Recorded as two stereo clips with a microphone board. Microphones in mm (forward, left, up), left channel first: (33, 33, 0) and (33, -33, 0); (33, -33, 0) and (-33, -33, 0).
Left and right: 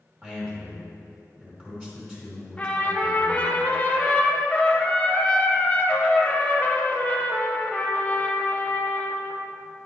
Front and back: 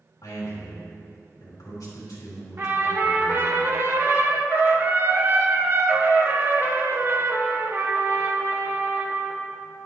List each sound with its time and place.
0.2 s a man speaking: 25° right, 2.5 m
2.6 s a trumpet: 150° left, 0.8 m